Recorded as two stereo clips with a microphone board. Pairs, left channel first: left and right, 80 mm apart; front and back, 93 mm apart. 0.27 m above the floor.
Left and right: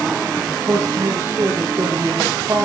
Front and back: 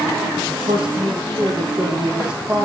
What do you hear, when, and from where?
0.5 s a man speaking: 155° right, 8 m; by 2.7 s 145° right, 8.5 m